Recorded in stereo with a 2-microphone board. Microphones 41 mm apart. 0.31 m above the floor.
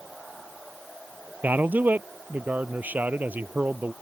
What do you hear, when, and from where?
1.4 s a man speaking: 50° right (ahead or behind)